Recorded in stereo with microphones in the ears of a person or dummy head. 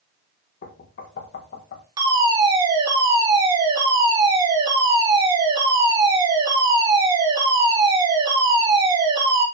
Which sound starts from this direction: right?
A fire alarm, at 2.0 s.